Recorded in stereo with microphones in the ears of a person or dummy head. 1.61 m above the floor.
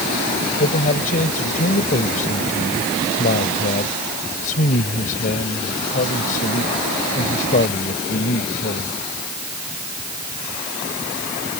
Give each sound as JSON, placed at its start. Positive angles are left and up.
{"t": 0.6, "sound": "a man speaking", "side_deg": 45}